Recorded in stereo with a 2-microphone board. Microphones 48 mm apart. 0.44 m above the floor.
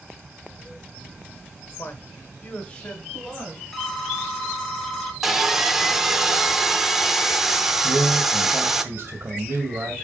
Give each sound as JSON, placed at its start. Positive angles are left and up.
{"t": 1.8, "sound": "a man speaking", "side_deg": 50, "distance_m": 1.1}
{"t": 3.7, "sound": "a phone ringing", "side_deg": 0, "distance_m": 1.5}
{"t": 5.2, "sound": "sawing", "side_deg": -10, "distance_m": 0.7}
{"t": 7.8, "sound": "a man speaking", "side_deg": -50, "distance_m": 2.0}